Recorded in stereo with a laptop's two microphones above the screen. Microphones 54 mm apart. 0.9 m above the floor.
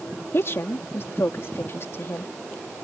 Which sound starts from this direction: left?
A woman speaking, at 0.3 s.